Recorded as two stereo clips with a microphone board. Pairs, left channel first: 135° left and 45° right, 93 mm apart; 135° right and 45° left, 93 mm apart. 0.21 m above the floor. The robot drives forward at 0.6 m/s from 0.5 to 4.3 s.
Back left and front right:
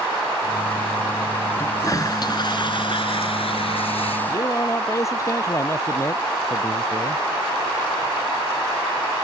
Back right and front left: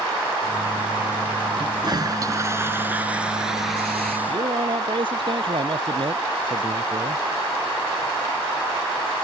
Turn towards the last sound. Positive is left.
turn(degrees=75)